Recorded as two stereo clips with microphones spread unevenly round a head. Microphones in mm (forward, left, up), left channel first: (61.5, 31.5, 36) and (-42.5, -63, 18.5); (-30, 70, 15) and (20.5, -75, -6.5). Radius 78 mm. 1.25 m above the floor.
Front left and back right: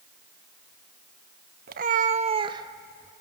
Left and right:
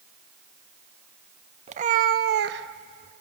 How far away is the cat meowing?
About 0.8 m.